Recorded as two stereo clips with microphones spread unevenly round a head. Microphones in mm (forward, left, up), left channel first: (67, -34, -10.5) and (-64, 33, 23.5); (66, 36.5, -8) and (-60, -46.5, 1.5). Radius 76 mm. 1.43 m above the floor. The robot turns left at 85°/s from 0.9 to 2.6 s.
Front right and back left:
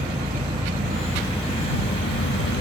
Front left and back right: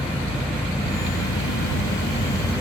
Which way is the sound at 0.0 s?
95° left.